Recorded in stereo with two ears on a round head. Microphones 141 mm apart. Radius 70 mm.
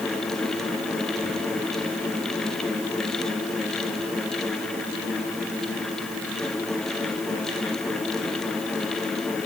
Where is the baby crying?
I don't hear a baby crying.